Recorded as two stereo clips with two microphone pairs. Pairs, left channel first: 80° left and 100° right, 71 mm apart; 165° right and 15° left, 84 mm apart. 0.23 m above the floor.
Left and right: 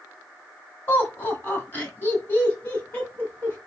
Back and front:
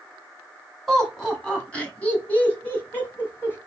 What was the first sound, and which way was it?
Laughter, 110° left.